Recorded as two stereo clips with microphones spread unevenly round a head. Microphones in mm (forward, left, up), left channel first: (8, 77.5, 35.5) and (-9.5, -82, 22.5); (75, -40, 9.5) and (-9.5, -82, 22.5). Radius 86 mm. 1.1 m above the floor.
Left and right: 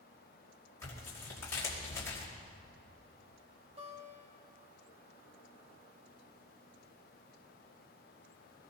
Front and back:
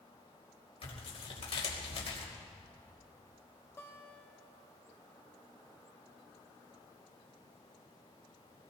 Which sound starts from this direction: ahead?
Tearing paper, at 0.8 s.